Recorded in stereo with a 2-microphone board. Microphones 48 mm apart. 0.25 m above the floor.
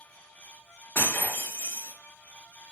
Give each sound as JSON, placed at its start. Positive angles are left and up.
{"t": 0.9, "sound": "breaking glass", "side_deg": 45, "distance_m": 2.5}